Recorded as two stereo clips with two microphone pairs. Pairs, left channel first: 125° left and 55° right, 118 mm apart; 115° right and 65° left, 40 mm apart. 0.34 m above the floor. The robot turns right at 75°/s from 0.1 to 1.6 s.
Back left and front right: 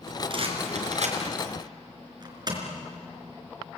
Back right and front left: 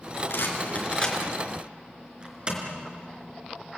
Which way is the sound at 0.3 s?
100° right.